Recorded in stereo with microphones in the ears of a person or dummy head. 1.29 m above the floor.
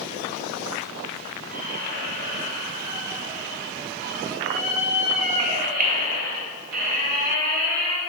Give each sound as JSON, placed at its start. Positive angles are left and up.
{"t": 1.5, "sound": "a squeak", "side_deg": -45, "distance_m": 1.2}